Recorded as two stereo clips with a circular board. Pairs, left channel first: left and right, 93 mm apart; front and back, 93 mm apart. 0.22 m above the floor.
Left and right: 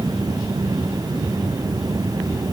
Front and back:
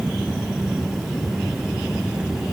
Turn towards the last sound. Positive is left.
No sound to turn to.